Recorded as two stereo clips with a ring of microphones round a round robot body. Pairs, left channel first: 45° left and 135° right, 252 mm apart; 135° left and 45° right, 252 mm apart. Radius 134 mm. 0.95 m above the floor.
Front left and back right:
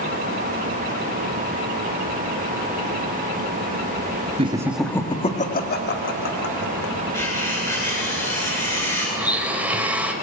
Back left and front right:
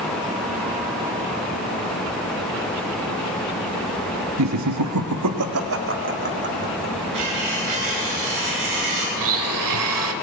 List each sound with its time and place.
4.4 s laughter: 65° right, 1.5 m; by 7.0 s 10° left, 3.5 m
7.1 s cutlery clinking: 35° right, 10 m
9.2 s a blender: 50° right, 1.8 m